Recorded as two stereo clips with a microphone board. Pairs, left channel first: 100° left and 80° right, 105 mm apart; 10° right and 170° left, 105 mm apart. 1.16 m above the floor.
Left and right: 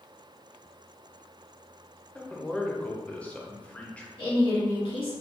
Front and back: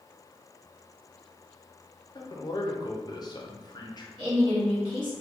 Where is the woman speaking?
130° left, 1.8 m.